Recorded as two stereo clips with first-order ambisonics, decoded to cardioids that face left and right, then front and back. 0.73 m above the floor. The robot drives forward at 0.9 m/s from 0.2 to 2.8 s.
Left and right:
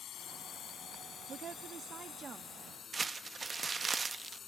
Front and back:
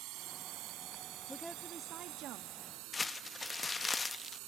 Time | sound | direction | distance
0.0 | a drone | 145° left | ?
1.3 | a woman speaking | 70° right | ?
2.9 | crumpling | 45° right | ?